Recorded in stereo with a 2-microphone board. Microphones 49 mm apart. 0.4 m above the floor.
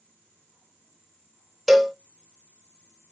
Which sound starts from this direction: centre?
A cowbell, at 1.7 s.